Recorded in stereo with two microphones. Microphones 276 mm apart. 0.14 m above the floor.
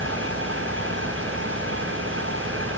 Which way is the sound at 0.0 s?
50° right (ahead or behind).